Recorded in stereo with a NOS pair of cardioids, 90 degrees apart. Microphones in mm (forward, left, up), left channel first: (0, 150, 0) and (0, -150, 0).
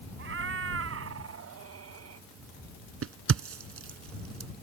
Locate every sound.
0.2 s a cat meowing: 45° right; by 2.3 s 55° right
3.0 s a crack: 50° right